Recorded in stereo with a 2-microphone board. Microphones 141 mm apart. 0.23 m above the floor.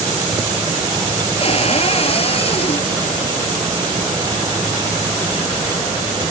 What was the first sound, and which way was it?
A cupboard door, 45° left (ahead or behind).